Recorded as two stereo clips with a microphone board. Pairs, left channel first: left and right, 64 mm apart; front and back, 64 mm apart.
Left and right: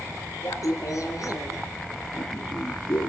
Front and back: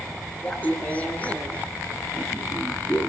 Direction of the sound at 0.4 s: 60° left.